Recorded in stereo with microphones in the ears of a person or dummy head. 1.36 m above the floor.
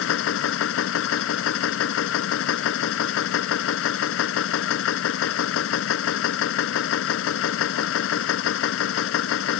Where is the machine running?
75° left (ahead or behind).